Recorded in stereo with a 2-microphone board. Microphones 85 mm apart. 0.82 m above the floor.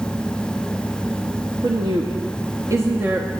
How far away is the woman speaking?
About 1.1 m.